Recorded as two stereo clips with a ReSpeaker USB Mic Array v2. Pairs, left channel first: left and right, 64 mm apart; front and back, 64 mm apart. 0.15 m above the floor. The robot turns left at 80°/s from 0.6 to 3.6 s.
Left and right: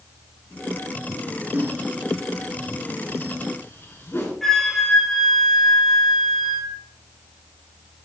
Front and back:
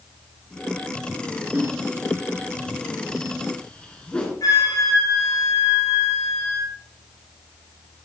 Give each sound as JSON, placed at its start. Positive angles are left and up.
{"t": 1.5, "sound": "a whoosh", "azimuth_deg": -130, "distance_m": 2.0}
{"t": 4.4, "sound": "a flute", "azimuth_deg": 5, "distance_m": 2.0}